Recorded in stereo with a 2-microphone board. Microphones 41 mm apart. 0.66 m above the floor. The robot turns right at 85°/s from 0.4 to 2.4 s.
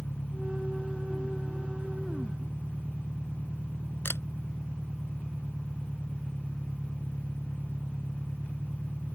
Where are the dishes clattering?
No dishes clattering in this recording.